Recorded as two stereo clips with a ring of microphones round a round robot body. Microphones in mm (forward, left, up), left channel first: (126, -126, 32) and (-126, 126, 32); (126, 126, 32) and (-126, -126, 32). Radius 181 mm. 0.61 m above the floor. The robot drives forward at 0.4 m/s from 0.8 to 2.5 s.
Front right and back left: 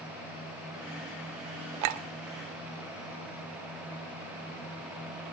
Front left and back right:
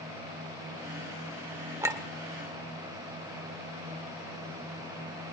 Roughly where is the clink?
Behind left.